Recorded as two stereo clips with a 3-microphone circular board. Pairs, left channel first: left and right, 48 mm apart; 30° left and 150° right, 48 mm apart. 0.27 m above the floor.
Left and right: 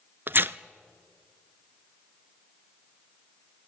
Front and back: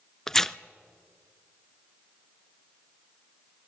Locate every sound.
0.3 s tearing paper: 50° right, 0.5 m